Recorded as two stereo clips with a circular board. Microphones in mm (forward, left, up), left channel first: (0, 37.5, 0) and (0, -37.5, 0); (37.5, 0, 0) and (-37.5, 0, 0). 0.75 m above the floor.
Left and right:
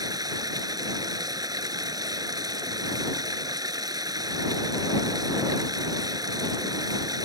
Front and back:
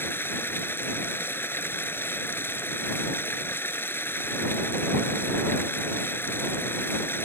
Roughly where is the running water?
Ahead right.